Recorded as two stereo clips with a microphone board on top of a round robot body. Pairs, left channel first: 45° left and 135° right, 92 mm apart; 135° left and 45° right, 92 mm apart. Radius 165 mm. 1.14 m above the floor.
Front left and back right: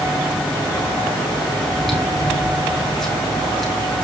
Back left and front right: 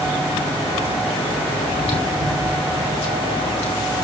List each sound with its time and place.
1.6 s chewing: 130° left, 3.5 m